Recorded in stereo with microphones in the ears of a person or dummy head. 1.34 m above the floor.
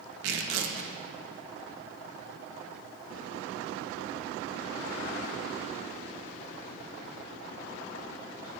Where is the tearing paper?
65° right (ahead or behind), 1.0 m.